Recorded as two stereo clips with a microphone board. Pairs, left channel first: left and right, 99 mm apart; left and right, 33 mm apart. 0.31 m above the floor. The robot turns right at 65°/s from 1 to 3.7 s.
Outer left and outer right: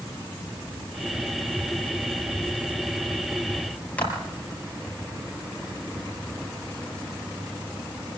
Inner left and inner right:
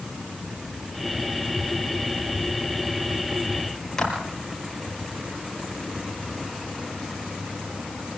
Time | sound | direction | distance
4.0 | a clap | 15° left (ahead or behind) | 5 m